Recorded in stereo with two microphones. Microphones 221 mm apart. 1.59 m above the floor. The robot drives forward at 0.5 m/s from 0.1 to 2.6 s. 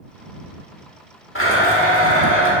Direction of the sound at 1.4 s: 70° left (ahead or behind).